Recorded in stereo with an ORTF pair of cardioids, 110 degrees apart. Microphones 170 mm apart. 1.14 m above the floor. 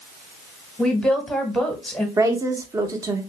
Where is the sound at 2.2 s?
20° right, 0.9 m.